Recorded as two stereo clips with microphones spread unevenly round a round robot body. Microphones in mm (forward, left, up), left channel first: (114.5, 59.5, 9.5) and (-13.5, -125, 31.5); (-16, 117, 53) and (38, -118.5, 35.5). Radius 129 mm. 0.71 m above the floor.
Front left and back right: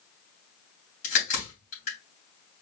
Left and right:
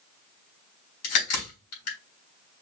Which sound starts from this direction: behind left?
A crack, at 1.0 s.